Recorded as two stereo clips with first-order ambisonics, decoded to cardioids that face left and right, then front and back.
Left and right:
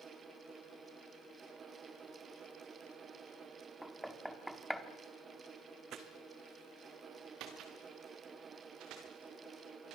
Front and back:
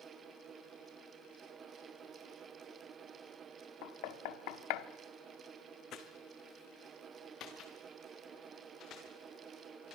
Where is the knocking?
Straight ahead, 1.1 m.